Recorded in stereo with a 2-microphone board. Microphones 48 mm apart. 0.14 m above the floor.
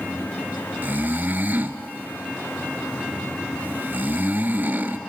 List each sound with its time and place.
0.8 s snoring: 40° right (ahead or behind), 1.0 m